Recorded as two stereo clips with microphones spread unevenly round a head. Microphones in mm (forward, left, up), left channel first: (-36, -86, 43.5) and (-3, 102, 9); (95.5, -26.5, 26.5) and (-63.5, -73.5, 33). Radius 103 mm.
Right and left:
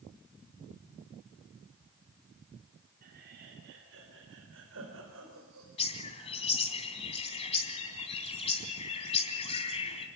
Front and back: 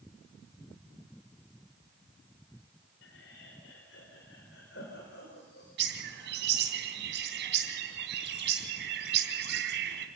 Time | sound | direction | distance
3.0 | laughter | 30° left | 3 m
5.8 | a bird | 155° right | 3 m